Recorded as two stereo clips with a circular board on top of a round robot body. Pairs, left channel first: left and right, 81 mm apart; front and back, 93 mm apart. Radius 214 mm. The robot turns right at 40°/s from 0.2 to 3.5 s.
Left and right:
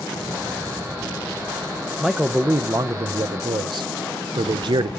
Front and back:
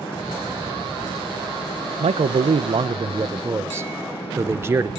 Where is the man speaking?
175° right, 0.6 m; by 4.9 s 115° right, 0.6 m.